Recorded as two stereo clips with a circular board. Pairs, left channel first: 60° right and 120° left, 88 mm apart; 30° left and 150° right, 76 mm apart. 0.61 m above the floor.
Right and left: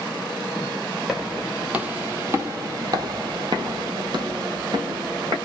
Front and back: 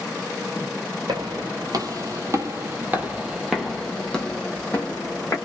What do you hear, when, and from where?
1.1 s footsteps: 155° right, 1.3 m; by 5.3 s 90° left, 1.6 m